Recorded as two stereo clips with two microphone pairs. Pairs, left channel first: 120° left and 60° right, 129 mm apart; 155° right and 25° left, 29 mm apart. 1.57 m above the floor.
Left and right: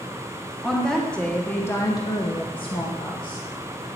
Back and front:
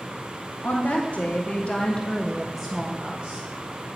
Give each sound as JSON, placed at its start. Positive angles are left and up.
{"t": 0.6, "sound": "a woman speaking", "azimuth_deg": -150, "distance_m": 1.2}